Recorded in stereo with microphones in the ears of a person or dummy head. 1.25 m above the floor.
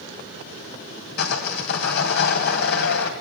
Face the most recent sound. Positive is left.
turn(degrees=60)  # may be behind; listen again after turning